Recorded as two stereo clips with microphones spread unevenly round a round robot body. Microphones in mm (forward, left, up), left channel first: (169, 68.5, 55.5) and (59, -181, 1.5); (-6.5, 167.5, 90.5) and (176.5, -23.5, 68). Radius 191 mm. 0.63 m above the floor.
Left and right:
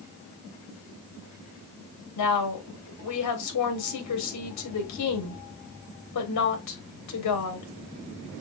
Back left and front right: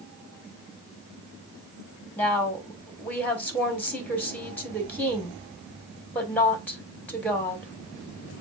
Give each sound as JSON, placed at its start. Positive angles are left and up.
{"t": 2.2, "sound": "a woman speaking", "azimuth_deg": 50, "distance_m": 2.0}